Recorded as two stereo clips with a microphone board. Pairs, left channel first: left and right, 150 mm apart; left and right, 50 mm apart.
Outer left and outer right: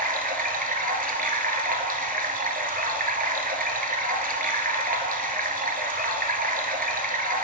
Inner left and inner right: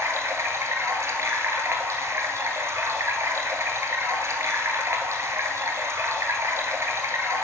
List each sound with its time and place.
0.0 s running water: 80° right, 0.9 m